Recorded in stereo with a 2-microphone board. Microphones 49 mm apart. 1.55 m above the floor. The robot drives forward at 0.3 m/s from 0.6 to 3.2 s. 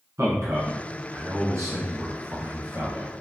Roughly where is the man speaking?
Right.